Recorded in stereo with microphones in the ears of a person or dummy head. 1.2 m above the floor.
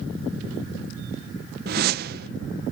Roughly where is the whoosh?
Right.